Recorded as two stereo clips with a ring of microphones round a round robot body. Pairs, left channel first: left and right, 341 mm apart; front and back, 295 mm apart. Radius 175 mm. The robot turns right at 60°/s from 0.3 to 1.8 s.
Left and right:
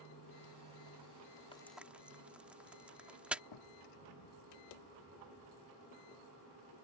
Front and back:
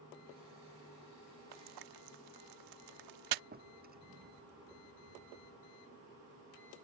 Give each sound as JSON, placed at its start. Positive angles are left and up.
{"t": 1.5, "sound": "frying", "azimuth_deg": 165}
{"t": 3.5, "sound": "a drawer", "azimuth_deg": 120}